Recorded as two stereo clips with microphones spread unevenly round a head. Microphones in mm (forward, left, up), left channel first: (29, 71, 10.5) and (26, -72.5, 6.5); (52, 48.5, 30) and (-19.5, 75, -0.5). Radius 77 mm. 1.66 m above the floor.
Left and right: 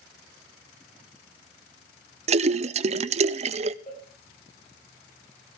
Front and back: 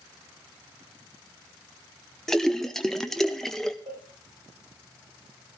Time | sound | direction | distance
2.3 | a splash | 75° right | 0.5 m
3.9 | a cowbell | 140° left | 7.5 m